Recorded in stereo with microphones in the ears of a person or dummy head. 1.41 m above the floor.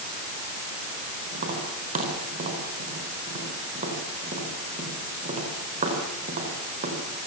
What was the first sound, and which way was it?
Tapping, 35° right (ahead or behind).